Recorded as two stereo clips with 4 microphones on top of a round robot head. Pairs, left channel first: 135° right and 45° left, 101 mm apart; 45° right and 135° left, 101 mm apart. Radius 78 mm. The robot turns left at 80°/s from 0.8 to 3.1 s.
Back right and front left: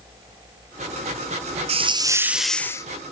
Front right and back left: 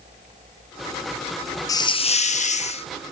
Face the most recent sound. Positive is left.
turn(degrees=-100)